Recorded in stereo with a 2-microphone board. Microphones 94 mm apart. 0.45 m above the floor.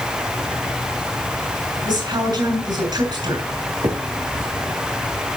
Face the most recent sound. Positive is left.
turn(degrees=-55)  # may be behind; listen again after turning